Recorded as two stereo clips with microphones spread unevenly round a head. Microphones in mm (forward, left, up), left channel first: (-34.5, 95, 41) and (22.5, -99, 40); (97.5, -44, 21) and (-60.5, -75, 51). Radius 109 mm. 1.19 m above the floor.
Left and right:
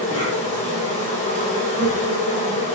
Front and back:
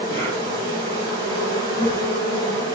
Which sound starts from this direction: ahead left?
An insect, at 0.0 s.